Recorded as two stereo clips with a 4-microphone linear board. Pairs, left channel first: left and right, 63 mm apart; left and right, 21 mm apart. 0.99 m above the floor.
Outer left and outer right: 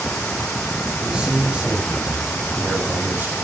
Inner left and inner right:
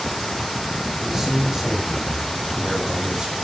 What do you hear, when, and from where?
1.0 s a man speaking: 10° right (ahead or behind), 7.5 m; by 3.4 s 30° right (ahead or behind), 4.5 m